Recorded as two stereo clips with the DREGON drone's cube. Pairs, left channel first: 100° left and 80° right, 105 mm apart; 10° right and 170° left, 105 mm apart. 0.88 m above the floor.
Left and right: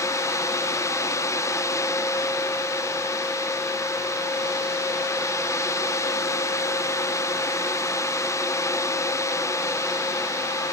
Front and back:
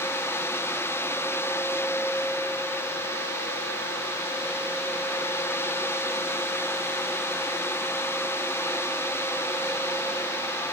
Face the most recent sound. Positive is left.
No sound to turn to.